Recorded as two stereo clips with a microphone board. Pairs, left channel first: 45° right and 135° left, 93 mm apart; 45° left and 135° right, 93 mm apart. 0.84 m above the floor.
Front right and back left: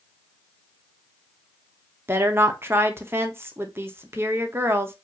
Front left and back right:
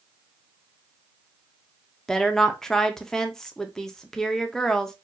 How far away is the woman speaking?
About 0.6 m.